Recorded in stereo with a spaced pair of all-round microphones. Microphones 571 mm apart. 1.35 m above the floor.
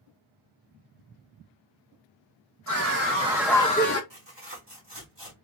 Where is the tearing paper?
45° right (ahead or behind), 2.0 m.